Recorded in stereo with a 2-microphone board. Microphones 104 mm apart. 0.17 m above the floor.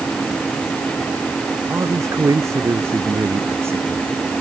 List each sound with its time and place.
1.7 s a man speaking: 35° right (ahead or behind); by 4.3 s 25° right (ahead or behind)